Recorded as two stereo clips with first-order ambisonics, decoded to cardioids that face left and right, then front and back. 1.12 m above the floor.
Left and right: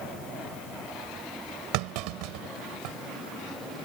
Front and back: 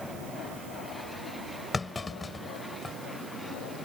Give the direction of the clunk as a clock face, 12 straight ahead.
3 o'clock.